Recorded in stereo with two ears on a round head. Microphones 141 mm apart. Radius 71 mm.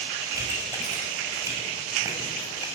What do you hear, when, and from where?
0.3 s a pop: 20° right (ahead or behind), 6.5 m